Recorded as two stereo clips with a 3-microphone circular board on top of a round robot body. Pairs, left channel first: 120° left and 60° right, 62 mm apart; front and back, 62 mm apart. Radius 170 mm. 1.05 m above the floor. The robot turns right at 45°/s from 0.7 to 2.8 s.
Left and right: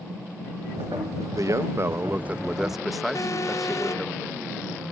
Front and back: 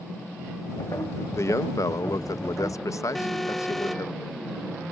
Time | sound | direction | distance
1.4 | a man speaking | 40° right | ?
3.1 | an alarm | 85° left | ?